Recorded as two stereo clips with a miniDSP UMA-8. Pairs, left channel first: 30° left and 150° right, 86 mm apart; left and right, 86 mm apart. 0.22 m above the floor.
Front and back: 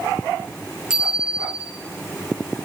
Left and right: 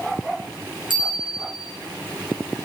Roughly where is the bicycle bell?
Right.